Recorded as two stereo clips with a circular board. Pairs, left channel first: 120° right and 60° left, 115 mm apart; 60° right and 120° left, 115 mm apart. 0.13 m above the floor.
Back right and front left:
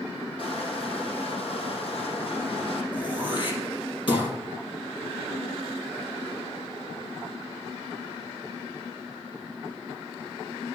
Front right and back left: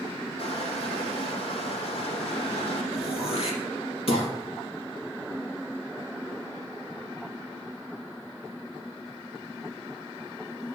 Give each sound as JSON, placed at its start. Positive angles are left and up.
{"t": 0.4, "sound": "crushing", "azimuth_deg": -90, "distance_m": 4.0}
{"t": 2.9, "sound": "throat clearing", "azimuth_deg": -80, "distance_m": 3.5}